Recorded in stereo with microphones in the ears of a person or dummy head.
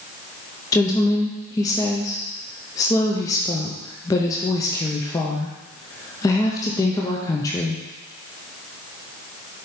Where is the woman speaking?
15° left (ahead or behind), 0.6 m.